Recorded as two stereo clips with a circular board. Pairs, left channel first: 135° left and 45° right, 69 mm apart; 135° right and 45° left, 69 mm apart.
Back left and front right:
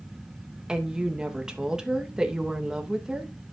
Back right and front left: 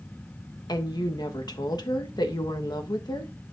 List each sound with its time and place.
0.7 s a woman speaking: 125° right, 1.1 m